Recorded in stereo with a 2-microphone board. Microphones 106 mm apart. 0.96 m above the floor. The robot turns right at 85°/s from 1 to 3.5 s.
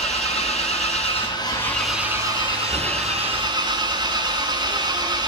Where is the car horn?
I don't hear a car horn.